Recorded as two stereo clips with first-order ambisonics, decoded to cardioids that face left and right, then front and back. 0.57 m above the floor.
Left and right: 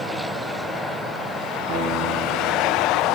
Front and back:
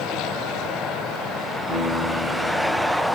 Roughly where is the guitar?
Right.